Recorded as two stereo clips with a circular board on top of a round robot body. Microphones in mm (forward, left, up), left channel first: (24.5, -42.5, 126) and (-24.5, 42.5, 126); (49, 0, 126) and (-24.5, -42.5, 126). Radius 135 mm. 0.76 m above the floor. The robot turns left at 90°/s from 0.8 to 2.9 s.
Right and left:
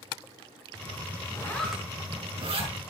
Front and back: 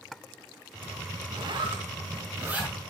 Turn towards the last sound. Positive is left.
turn(degrees=105)